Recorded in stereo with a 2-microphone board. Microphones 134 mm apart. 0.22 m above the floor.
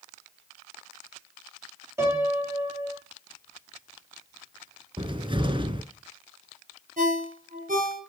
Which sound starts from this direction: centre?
A piano, at 2.0 s.